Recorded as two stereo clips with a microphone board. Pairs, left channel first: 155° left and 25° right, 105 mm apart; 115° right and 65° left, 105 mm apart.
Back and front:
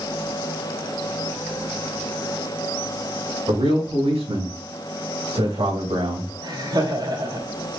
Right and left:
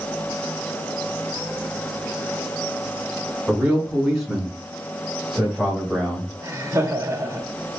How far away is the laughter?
About 2.5 m.